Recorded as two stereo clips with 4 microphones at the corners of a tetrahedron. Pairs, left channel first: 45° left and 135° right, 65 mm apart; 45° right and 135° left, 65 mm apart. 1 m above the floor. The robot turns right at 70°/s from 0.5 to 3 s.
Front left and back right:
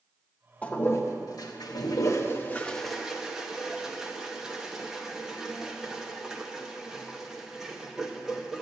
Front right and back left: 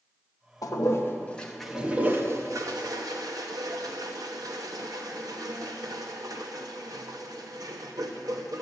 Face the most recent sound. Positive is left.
turn(degrees=140)